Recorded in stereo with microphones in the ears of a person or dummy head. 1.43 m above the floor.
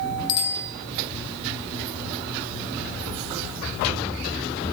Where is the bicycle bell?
65° left (ahead or behind), 3 m.